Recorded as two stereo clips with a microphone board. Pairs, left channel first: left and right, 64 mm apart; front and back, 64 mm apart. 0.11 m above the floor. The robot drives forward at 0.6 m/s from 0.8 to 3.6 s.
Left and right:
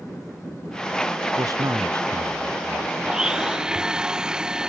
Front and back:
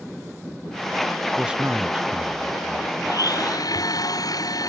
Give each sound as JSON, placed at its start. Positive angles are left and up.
{"t": 1.4, "sound": "a man speaking", "azimuth_deg": -105}
{"t": 3.0, "sound": "a blender", "azimuth_deg": -10}